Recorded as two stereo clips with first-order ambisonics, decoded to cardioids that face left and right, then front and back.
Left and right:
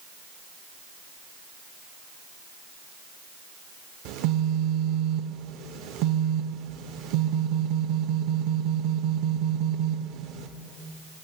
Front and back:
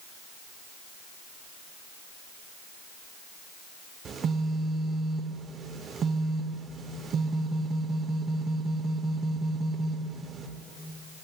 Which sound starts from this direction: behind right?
A phone buzzing, at 4.0 s.